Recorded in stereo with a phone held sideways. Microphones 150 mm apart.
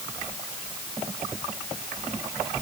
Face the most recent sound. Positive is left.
No sound to turn to.